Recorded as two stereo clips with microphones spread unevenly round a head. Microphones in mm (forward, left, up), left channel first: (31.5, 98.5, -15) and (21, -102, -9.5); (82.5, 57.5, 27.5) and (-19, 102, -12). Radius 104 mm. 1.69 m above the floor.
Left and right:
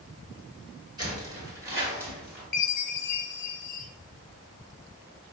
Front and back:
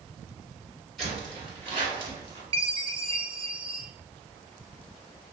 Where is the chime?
110° left, 0.7 m.